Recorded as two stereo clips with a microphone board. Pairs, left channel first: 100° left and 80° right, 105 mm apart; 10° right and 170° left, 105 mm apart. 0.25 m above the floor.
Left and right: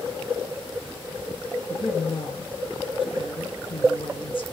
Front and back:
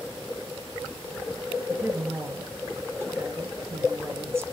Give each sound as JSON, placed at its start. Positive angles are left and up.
{"t": 1.7, "sound": "a woman speaking", "azimuth_deg": 110, "distance_m": 1.9}